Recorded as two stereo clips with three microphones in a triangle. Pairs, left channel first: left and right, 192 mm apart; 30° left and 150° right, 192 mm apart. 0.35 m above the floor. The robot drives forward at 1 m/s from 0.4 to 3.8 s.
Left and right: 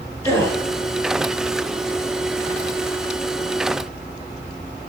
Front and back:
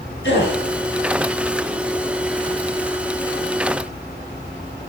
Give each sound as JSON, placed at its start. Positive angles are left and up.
{"t": 0.2, "sound": "a gasp", "azimuth_deg": 15, "distance_m": 5.5}